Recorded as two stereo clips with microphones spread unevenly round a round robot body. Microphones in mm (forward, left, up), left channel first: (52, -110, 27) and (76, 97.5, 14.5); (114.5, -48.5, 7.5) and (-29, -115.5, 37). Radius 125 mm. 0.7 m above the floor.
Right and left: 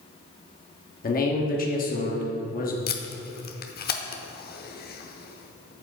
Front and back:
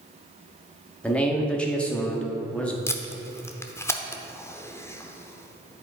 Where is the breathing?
No breathing in this recording.